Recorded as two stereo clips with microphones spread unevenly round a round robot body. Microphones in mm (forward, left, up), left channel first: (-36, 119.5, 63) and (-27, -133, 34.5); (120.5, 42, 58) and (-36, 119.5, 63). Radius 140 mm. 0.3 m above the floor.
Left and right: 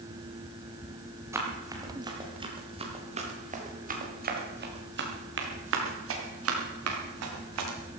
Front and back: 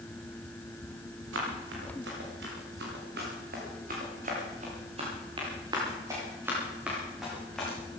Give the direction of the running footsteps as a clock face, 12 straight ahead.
6 o'clock.